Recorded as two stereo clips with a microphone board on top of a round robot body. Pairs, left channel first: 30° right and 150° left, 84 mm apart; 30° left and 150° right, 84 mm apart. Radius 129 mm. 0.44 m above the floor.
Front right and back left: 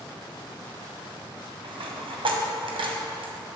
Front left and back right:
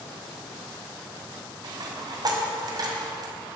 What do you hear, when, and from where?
1.6 s a dropped coin: 170° left, 1.8 m